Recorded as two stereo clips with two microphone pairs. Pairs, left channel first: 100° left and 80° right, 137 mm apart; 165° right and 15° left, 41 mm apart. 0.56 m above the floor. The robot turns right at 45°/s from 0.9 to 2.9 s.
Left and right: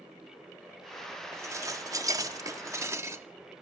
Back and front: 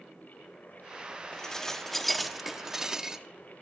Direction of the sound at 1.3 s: 115° right.